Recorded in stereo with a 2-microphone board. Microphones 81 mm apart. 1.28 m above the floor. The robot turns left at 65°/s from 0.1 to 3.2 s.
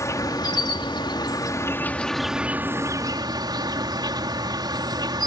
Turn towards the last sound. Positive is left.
turn(degrees=-65)